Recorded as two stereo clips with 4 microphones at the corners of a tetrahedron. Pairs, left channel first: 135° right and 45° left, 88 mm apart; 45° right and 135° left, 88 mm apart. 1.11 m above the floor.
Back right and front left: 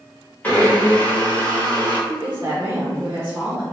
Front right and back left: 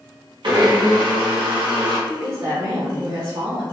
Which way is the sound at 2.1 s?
100° left.